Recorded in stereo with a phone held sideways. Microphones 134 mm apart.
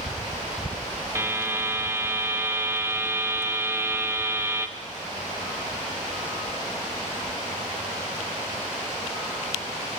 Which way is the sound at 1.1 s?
20° right (ahead or behind).